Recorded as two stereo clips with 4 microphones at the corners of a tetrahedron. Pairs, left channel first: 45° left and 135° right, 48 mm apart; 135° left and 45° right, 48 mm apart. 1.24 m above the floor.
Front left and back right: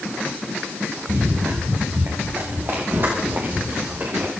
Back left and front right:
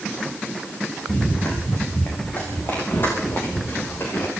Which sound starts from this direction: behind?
Running footsteps, at 1.1 s.